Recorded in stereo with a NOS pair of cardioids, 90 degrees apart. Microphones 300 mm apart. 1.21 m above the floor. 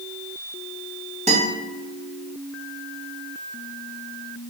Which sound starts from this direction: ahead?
A guitar, at 1.3 s.